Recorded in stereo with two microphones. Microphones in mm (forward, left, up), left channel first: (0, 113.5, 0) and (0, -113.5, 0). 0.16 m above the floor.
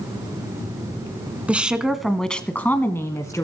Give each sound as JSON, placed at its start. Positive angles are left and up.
{"t": 1.5, "sound": "a woman speaking", "side_deg": -5, "distance_m": 1.3}